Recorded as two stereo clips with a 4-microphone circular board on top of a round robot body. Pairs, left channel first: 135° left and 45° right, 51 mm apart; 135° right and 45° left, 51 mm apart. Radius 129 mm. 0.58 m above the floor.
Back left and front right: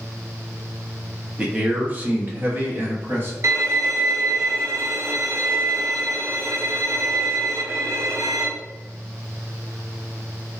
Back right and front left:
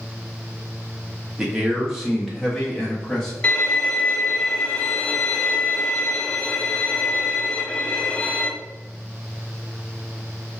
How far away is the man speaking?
About 1.3 m.